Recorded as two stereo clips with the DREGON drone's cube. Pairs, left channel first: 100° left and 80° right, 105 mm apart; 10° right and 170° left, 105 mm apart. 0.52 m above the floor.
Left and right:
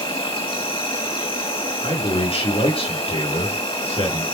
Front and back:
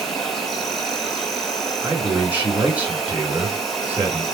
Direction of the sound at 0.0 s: 75° left.